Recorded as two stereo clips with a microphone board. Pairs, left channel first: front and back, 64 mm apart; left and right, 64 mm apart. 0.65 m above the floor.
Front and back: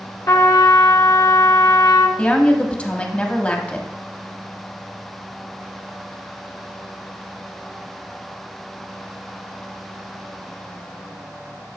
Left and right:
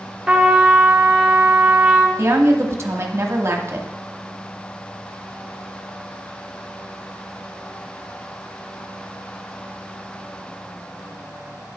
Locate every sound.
0.3 s a trumpet: 10° right, 1.1 m
2.2 s a woman speaking: 60° right, 1.0 m